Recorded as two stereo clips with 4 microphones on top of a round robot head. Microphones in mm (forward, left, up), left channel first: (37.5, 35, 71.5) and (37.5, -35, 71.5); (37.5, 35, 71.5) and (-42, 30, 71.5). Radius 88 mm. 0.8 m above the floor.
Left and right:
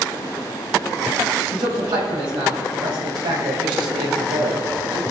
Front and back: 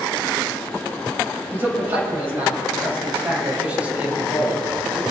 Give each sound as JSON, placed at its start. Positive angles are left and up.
{"t": 1.5, "sound": "a man speaking", "azimuth_deg": -110, "distance_m": 4.5}